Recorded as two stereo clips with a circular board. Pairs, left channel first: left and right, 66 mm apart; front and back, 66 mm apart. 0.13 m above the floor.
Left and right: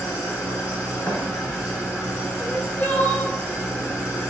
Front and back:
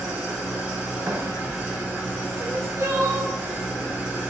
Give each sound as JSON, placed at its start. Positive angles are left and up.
{"t": 0.0, "sound": "an engine running", "azimuth_deg": -140, "distance_m": 1.5}
{"t": 1.1, "sound": "a thud", "azimuth_deg": 140, "distance_m": 0.5}
{"t": 2.4, "sound": "crying", "azimuth_deg": 145, "distance_m": 0.6}